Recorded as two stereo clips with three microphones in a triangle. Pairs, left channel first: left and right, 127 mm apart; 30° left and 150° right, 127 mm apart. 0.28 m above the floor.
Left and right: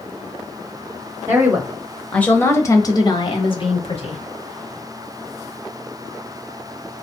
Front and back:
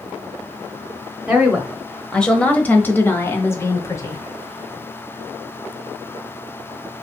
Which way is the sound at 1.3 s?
80° right.